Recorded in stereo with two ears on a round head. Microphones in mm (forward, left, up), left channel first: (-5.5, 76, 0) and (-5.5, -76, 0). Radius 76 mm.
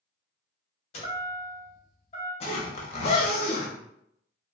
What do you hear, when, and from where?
0.9 s a chime: 35° left (ahead or behind), 1.3 m
2.4 s a zipper: 35° left (ahead or behind), 0.6 m